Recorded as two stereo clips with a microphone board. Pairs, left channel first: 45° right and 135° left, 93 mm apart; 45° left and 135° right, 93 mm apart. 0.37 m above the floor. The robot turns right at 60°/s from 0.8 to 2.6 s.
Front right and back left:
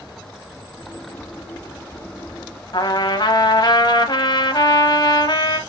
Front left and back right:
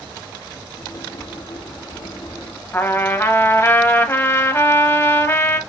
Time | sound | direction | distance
2.7 | a trumpet | 15° right | 0.9 m